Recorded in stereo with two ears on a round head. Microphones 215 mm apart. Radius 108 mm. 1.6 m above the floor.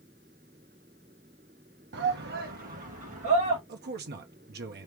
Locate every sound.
1.9 s a shout: 50° right (ahead or behind), 1.2 m; by 3.6 s 30° right (ahead or behind), 2 m
3.7 s a man speaking: 45° right (ahead or behind), 1.0 m